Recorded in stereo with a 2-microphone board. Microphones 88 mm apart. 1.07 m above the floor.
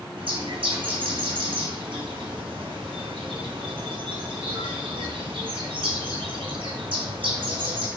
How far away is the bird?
About 3.5 m.